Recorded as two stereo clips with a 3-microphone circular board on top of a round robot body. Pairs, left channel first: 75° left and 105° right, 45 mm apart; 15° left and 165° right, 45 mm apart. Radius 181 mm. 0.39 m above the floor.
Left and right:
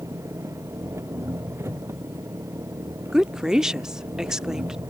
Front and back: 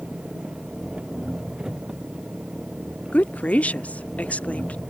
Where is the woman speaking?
30° right.